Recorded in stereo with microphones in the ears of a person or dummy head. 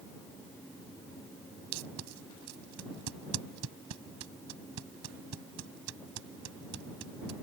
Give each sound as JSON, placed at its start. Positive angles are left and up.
{"t": 1.7, "sound": "tape being pulled", "side_deg": -85}